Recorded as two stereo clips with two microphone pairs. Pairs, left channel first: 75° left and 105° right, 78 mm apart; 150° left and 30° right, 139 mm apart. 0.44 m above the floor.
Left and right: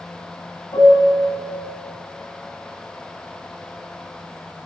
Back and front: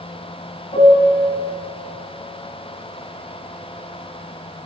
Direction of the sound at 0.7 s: 110° left.